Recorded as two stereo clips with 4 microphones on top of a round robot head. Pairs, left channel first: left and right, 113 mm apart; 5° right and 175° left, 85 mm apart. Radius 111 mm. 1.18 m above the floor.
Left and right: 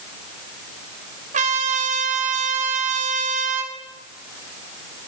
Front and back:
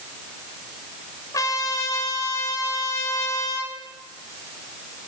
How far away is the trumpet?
About 2.5 m.